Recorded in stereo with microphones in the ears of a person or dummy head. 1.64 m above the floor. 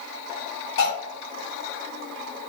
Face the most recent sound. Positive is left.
turn(degrees=60)  # may be behind; listen again after turning